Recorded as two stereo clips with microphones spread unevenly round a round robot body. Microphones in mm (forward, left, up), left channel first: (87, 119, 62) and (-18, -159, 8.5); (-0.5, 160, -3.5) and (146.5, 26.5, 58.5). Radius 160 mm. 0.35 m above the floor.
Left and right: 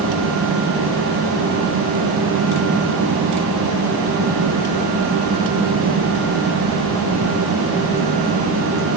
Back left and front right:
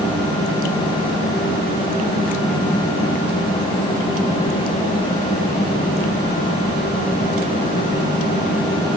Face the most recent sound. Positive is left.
No sound to turn to.